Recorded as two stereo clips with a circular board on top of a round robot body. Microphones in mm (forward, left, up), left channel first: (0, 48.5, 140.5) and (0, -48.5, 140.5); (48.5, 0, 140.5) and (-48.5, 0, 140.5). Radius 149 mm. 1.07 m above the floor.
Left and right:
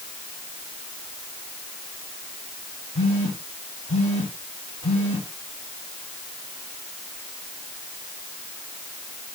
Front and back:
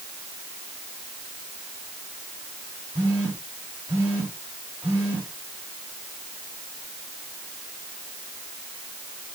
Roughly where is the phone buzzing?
Left.